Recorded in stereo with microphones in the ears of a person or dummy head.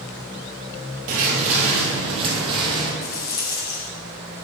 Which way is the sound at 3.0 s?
20° left (ahead or behind).